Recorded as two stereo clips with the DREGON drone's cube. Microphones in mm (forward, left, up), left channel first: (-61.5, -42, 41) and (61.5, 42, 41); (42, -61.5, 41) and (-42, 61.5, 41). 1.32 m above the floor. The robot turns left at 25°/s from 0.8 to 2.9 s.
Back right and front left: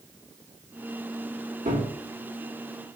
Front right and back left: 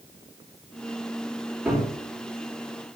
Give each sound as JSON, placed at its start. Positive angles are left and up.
{"t": 1.6, "sound": "a cupboard door", "azimuth_deg": 40, "distance_m": 3.0}